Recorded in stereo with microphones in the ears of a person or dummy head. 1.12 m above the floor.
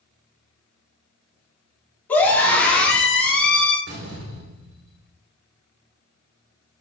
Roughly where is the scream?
Centre.